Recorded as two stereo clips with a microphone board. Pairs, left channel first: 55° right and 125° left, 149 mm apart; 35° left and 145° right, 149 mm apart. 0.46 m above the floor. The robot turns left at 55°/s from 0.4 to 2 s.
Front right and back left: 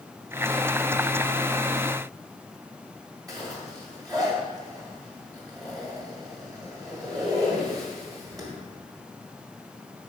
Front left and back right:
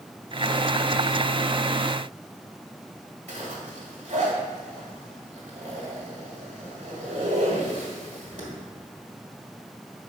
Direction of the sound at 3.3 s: 175° right.